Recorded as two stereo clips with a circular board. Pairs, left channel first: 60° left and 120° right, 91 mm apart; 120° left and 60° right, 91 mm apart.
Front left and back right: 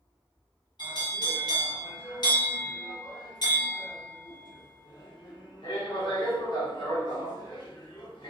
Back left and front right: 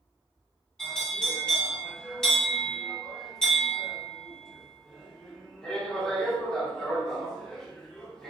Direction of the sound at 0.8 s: 40° left.